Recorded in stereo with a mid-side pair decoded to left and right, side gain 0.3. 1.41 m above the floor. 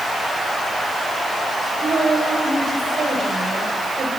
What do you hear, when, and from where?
1.8 s a woman speaking: 70° right, 7 m